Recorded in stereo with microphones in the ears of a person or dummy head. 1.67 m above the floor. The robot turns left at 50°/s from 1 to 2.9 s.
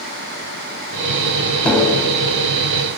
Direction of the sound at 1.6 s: Centre (ahead or behind).